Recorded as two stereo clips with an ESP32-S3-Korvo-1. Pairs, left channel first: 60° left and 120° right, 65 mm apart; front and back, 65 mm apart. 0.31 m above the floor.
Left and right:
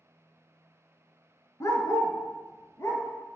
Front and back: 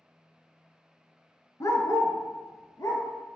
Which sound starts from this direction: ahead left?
A dog barking, at 1.6 s.